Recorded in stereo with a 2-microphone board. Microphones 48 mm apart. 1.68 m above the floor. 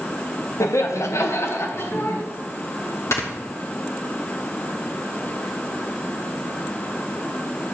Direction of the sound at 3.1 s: 70° left (ahead or behind).